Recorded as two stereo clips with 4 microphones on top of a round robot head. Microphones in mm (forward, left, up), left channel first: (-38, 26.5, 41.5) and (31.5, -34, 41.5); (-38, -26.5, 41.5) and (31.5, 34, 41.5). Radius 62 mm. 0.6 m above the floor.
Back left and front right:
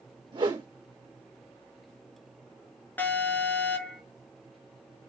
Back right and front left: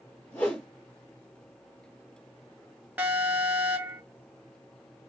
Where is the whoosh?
70° right, 2.5 m.